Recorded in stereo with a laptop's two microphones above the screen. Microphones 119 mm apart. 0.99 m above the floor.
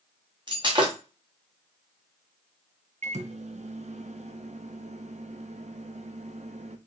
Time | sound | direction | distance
0.5 | breaking glass | 40° right (ahead or behind) | 1.0 m
3.0 | a microwave | 65° right (ahead or behind) | 0.5 m